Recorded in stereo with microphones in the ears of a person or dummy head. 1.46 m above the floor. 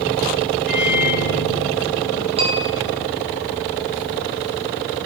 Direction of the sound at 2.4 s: 35° right (ahead or behind).